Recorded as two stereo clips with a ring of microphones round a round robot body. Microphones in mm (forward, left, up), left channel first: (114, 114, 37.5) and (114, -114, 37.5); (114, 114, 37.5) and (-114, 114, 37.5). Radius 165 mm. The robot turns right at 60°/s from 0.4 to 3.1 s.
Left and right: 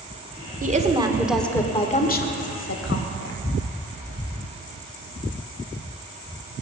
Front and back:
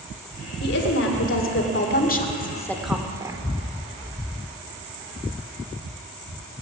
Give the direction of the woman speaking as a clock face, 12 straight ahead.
1 o'clock.